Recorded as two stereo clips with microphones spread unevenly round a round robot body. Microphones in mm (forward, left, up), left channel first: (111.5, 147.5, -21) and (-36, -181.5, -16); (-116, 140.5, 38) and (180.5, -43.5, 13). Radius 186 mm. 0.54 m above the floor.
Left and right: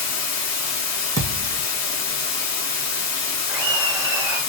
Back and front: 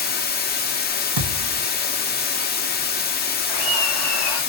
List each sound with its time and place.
0.0 s running water: 90° left, 0.8 m
1.2 s a thud: 30° right, 2 m
3.5 s laughter: 150° left, 1.6 m